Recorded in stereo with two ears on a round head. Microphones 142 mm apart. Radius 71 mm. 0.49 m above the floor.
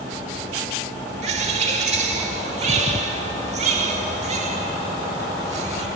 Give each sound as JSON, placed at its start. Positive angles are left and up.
{"t": 1.2, "sound": "a bird", "side_deg": -45, "distance_m": 1.2}